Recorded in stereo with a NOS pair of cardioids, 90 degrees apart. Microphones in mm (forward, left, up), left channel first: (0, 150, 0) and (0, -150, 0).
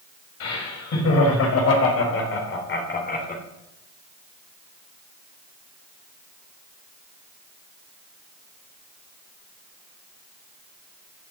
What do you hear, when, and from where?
0.4 s laughter: 60° left, 5.5 m; by 3.4 s 25° left, 3 m